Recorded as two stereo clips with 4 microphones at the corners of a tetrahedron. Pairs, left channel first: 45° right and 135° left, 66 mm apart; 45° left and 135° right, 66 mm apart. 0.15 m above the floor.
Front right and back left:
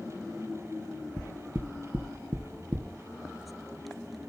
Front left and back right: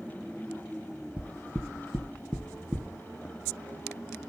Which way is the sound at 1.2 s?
170° left.